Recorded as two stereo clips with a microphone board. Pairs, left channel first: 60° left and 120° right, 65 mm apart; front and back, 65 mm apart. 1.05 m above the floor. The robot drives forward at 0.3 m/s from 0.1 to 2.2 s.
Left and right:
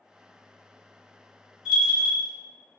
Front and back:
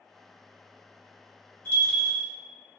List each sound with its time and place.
1.6 s a bell: 45° right, 0.9 m; by 2.3 s 60° right, 0.8 m